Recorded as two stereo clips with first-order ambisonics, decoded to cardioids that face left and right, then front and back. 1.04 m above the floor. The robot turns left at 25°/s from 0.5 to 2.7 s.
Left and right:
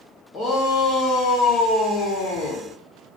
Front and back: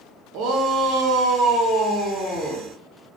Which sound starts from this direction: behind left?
A shout, at 0.3 s.